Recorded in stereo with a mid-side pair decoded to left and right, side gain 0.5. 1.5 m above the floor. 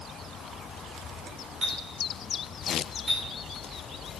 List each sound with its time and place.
1.6 s a clink: 35° right, 4 m